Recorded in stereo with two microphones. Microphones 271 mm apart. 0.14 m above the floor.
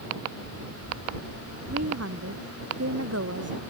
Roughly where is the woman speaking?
Right.